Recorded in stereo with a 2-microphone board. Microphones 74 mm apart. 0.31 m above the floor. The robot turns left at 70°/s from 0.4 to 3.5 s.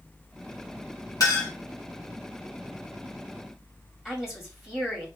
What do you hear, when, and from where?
1.2 s a clink: 55° left (ahead or behind), 2 m; by 1.5 s 35° left (ahead or behind), 2 m
4.0 s a woman speaking: 5° right (ahead or behind), 1.9 m